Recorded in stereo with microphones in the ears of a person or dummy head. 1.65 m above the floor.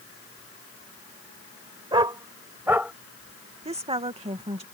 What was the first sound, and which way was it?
A dog barking, 20° right (ahead or behind).